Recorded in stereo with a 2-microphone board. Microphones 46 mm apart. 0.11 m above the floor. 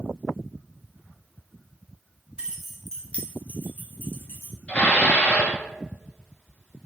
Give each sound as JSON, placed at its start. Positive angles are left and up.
{"t": 2.4, "sound": "keys jangling", "side_deg": -25, "distance_m": 0.8}
{"t": 4.7, "sound": "dishes clattering", "side_deg": 30, "distance_m": 1.0}